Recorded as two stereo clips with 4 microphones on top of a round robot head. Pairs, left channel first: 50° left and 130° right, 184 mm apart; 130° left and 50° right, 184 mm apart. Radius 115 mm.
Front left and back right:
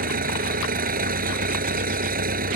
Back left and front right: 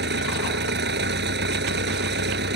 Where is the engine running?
85° right.